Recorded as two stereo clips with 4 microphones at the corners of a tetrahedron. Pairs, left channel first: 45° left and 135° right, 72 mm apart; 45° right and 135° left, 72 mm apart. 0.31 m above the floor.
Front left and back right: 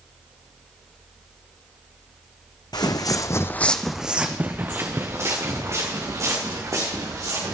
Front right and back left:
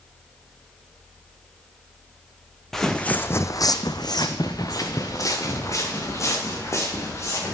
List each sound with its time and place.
2.7 s footsteps: 40° left, 1.2 m; by 7.5 s 95° right, 5 m